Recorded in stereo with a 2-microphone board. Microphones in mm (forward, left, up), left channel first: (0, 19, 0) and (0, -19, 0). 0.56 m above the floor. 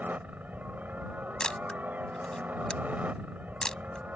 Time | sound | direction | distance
0.0 | a helicopter | 45° right (ahead or behind) | ?
1.4 | a camera shutter | 20° left (ahead or behind) | ?